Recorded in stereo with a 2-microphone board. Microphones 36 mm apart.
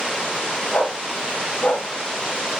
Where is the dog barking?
65° left (ahead or behind), 6 m.